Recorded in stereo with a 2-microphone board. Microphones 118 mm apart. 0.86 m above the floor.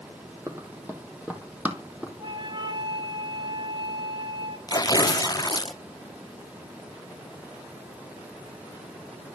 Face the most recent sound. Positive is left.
turn(degrees=30)  # may be behind; listen again after turning